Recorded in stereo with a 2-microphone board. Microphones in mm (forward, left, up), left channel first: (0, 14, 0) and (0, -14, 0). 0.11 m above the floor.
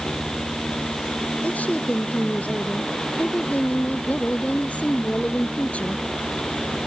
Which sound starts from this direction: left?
A woman speaking, at 1.4 s.